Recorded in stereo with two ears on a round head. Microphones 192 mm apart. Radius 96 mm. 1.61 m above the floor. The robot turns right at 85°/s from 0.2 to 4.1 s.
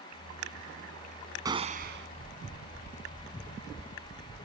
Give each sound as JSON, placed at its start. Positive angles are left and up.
{"t": 1.4, "sound": "a gunshot", "azimuth_deg": -160}